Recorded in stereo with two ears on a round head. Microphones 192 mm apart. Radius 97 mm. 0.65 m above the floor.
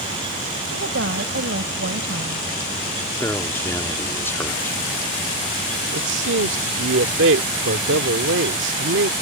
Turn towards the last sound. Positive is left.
turn(degrees=-65)  # may be behind; listen again after turning